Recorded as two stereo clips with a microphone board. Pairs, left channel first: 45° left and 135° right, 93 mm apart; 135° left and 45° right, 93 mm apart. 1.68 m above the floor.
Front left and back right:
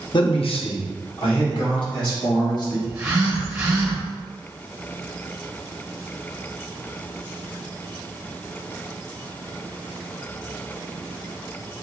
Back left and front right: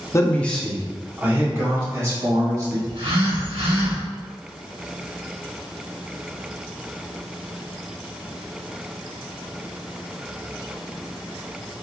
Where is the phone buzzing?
60° right, 1.6 m.